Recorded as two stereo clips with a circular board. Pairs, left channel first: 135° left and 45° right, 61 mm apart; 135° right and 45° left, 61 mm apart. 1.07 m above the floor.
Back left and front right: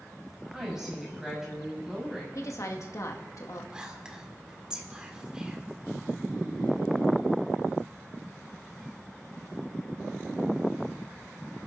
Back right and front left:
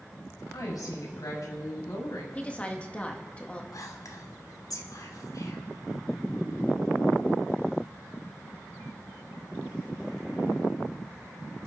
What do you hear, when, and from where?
0.5 s a woman speaking: 125° right, 5.5 m
2.4 s a woman speaking: 155° left, 1.8 m
3.7 s whispering: 120° right, 2.5 m